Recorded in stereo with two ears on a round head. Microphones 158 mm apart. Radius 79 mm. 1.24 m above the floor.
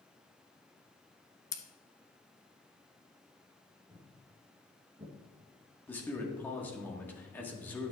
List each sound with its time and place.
1.5 s scissors: 20° left (ahead or behind), 0.6 m
3.9 s footsteps: 10° right (ahead or behind), 3 m; by 5.1 s 30° right (ahead or behind), 2.5 m
5.9 s a man speaking: 10° left (ahead or behind), 1.5 m